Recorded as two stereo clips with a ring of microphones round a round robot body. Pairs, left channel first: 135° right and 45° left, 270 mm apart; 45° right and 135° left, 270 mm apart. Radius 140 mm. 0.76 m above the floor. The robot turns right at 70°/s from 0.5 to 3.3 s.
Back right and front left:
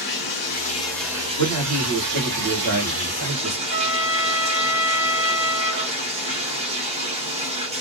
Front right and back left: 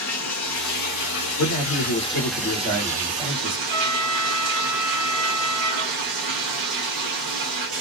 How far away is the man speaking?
About 1.8 m.